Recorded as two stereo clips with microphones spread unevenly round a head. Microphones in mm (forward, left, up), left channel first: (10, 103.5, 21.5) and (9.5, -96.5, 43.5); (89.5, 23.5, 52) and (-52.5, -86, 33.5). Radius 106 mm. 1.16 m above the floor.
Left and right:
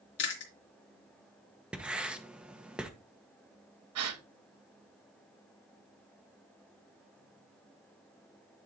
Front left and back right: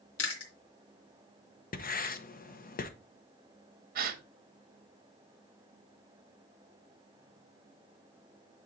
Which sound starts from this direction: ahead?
Writing, at 1.7 s.